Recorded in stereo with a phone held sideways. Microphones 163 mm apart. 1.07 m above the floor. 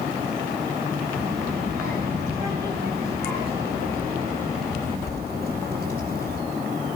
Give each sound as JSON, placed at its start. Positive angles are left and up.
{"t": 1.1, "sound": "a child speaking", "side_deg": -75, "distance_m": 4.0}